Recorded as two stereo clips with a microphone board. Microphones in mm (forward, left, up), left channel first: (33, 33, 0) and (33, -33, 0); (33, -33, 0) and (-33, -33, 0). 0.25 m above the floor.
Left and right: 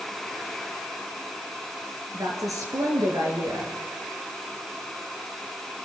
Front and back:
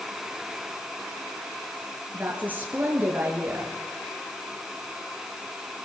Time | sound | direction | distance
2.1 | a woman speaking | 115° right | 4.5 m